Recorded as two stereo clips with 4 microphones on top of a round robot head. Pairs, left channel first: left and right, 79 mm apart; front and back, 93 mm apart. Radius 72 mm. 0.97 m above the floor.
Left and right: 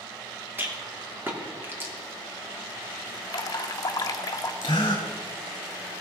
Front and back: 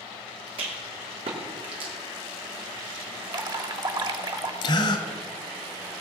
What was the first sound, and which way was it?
A rattle, 150° right.